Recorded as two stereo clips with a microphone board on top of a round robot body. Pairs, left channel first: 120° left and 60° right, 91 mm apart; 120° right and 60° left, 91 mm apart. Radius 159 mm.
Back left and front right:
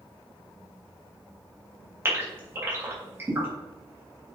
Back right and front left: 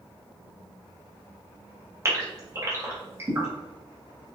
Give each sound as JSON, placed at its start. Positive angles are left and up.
{"t": 2.0, "sound": "a gasp", "azimuth_deg": 0, "distance_m": 3.5}